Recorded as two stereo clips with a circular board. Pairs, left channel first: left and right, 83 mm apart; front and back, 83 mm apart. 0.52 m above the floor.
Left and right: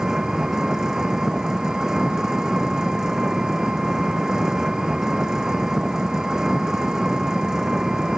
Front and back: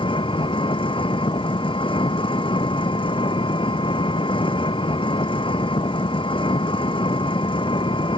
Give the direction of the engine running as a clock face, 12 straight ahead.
12 o'clock.